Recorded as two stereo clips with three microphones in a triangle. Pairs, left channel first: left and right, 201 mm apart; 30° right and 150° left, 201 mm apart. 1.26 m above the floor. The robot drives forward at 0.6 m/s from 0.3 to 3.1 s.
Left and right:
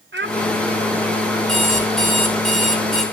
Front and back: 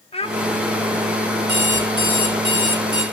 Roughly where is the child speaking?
Right.